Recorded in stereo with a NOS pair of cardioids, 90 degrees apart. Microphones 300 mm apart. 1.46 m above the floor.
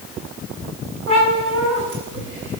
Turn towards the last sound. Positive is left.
turn(degrees=-40)